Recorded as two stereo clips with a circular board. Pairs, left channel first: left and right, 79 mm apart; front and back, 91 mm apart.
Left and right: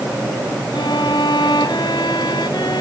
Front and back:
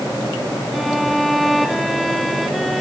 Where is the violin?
90° left.